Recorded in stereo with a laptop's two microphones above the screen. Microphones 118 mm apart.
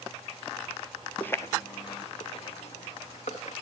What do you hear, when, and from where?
1.2 s footsteps: 10° left (ahead or behind), 1.3 m; by 3.5 s 75° left (ahead or behind), 4 m